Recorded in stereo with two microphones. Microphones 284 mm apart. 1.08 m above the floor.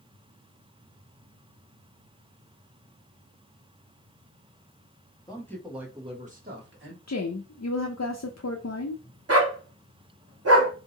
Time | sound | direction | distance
5.3 | a man speaking | 15° left (ahead or behind) | 1.2 m
7.1 | a woman speaking | 65° left (ahead or behind) | 0.5 m
9.3 | a dog barking | 55° right (ahead or behind) | 0.8 m